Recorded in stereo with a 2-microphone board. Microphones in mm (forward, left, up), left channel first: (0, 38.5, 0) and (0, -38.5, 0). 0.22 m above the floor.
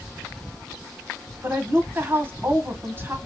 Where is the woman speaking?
30° right (ahead or behind), 1.2 m.